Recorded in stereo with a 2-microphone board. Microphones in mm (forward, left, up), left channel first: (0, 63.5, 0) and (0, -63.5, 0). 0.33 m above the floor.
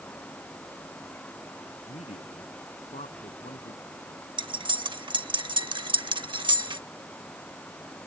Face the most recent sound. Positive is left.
turn(degrees=-40)  # may be behind; listen again after turning